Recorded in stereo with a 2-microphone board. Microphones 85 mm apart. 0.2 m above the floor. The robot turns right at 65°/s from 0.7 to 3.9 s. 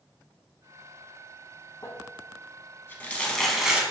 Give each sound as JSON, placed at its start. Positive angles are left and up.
{"t": 1.8, "sound": "crumpling", "side_deg": 40, "distance_m": 0.7}